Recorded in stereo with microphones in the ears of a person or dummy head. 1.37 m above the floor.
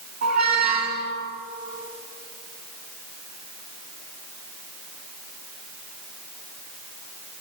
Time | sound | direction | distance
0.2 | a squeak | 55° right (ahead or behind) | 2 m